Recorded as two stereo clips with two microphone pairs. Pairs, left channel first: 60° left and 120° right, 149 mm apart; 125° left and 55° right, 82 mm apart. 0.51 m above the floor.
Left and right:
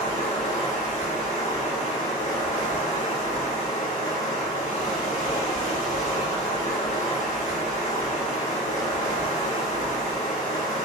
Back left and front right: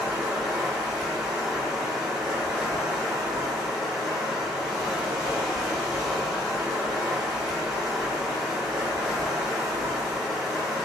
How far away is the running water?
About 1.6 m.